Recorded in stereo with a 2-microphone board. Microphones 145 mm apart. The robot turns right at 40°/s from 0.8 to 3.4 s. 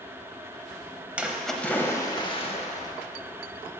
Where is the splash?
10° right, 0.7 m; by 2.9 s 60° left, 0.7 m.